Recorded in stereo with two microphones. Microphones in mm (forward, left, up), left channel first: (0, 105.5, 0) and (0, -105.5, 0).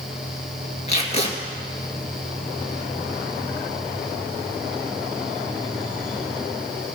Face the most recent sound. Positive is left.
turn(degrees=30)  # may be behind; listen again after turning